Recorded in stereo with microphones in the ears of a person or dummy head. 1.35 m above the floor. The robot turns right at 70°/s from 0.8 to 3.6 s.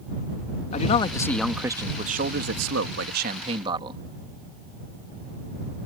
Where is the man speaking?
135° left; by 4.0 s 30° right.